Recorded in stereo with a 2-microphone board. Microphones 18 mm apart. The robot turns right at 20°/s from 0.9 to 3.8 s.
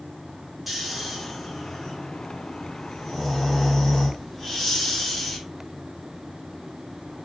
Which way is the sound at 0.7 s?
20° right.